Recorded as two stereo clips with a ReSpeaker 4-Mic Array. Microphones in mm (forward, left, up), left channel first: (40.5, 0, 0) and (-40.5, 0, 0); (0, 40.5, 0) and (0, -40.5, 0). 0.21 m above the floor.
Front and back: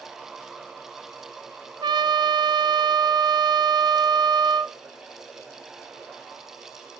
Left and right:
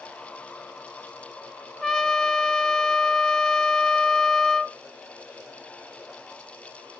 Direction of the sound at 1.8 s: 175° left.